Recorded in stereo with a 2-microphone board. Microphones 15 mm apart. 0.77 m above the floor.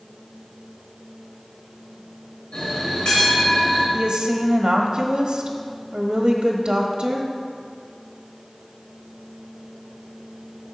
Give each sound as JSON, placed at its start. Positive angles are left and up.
{"t": 2.5, "sound": "a bell", "side_deg": 65, "distance_m": 4.0}
{"t": 3.9, "sound": "a woman speaking", "side_deg": -50, "distance_m": 1.1}